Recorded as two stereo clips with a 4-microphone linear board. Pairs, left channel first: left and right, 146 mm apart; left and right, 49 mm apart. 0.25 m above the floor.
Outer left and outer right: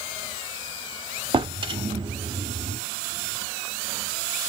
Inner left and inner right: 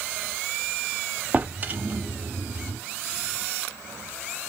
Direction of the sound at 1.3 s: 35° right (ahead or behind).